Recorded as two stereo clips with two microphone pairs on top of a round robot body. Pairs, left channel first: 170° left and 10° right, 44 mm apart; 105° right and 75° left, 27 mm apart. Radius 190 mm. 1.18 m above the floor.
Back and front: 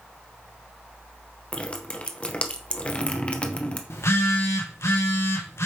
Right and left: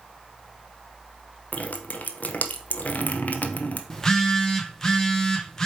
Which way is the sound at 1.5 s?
125° right.